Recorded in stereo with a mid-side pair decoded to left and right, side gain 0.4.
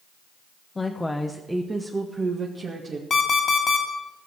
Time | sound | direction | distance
0.8 | a woman speaking | 30° left | 1.1 m
3.1 | an alarm clock | 50° left | 2.5 m